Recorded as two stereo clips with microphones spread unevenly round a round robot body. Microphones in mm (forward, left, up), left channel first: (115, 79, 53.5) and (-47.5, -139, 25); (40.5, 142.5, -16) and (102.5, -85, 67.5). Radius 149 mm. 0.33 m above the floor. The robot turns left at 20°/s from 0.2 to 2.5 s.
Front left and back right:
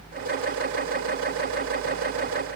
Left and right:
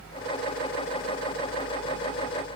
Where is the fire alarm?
No fire alarm in this recording.